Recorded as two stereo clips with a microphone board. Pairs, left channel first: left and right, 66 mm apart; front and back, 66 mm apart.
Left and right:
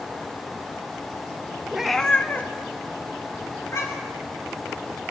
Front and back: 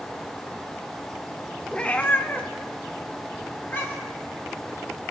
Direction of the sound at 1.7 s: 40° right.